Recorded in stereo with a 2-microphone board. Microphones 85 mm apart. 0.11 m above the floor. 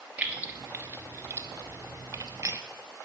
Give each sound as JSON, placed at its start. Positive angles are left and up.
{"t": 0.2, "sound": "keys jangling", "side_deg": -20, "distance_m": 1.3}